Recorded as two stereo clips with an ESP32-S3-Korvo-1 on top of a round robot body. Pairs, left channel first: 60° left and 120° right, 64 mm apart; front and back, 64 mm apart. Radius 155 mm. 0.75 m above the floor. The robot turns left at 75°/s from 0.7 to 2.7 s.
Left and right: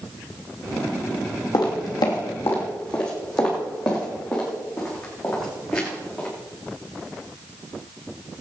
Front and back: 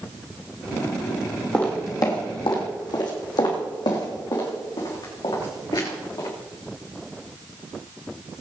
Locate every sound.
1.5 s footsteps: 75° left, 2 m; by 6.3 s 25° right, 5 m